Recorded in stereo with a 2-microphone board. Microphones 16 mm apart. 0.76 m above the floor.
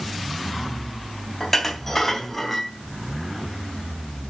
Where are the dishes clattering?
15° left (ahead or behind), 3.5 m.